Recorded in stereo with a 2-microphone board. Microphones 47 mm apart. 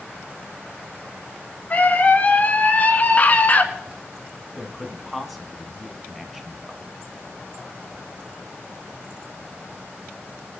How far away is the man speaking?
About 1.6 m.